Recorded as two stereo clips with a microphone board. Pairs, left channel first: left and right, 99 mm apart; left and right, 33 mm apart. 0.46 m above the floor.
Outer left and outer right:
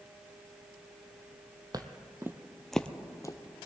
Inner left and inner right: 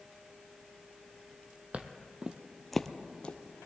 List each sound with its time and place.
1.7 s footsteps: 40° right (ahead or behind), 0.9 m; by 3.6 s 45° left (ahead or behind), 0.8 m